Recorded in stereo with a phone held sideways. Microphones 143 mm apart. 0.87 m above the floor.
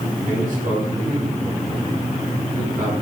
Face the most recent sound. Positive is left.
turn(degrees=-70)  # may be behind; listen again after turning